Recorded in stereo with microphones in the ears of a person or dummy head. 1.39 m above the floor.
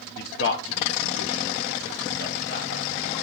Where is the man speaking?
50° left (ahead or behind), 0.7 m; by 3.2 s 75° left (ahead or behind), 2.5 m.